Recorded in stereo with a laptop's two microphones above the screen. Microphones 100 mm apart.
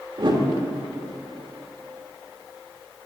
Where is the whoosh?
50° right (ahead or behind), 1.3 m.